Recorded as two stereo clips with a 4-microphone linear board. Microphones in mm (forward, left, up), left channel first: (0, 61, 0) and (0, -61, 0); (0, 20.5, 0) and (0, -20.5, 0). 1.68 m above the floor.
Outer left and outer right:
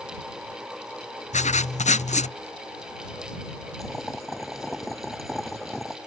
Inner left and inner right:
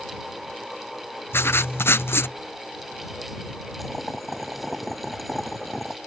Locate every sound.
1.3 s writing: 80° left
3.8 s boiling: centre (ahead or behind)